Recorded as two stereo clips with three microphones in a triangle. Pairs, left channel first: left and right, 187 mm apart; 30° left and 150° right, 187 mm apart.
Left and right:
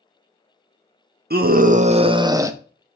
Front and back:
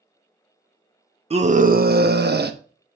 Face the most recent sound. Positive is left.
turn(degrees=-165)